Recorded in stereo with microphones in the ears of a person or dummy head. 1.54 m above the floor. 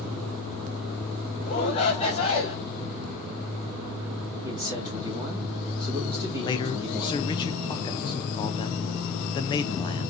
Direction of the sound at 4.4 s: 15° right (ahead or behind).